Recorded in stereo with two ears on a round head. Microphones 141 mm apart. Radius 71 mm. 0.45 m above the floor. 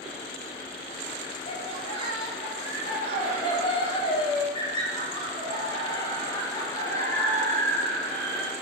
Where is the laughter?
40° left (ahead or behind), 9.5 m; by 8.5 s 10° left (ahead or behind), 5.5 m.